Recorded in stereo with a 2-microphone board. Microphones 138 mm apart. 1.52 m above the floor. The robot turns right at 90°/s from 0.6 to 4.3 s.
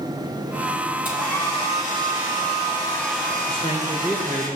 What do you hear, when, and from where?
1.1 s a hair dryer: 10° right, 9 m; by 4.5 s 75° right, 9 m
3.5 s a man speaking: 130° left, 1.8 m; by 4.5 s 155° right, 1.8 m